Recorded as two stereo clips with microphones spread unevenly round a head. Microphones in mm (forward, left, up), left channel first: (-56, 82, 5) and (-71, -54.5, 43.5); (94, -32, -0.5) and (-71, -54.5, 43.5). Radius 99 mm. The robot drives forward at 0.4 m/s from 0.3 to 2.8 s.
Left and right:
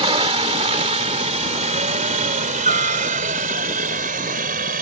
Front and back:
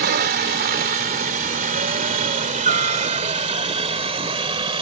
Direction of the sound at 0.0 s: 145° right.